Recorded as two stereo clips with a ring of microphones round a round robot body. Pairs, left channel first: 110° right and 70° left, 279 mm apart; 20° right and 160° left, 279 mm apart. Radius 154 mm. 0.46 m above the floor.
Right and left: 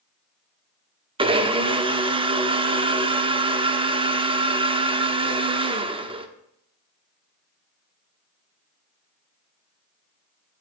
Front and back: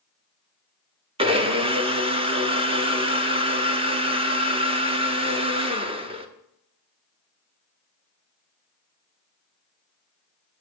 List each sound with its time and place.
1.2 s a blender: 115° left, 1.1 m